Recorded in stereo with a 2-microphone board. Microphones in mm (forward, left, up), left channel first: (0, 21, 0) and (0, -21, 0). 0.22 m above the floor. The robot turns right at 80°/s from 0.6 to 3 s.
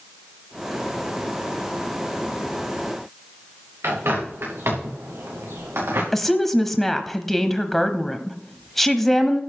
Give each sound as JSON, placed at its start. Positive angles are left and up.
{"t": 3.8, "sound": "a bird", "side_deg": -80, "distance_m": 5.0}
{"t": 6.1, "sound": "a woman speaking", "side_deg": 5, "distance_m": 0.9}